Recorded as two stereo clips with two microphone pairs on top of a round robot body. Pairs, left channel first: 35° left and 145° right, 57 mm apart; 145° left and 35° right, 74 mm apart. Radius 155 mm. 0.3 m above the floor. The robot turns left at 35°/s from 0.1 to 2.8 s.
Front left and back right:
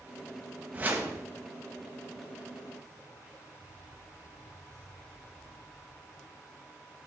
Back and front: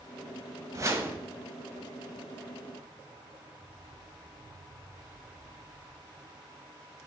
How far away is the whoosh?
About 1.3 m.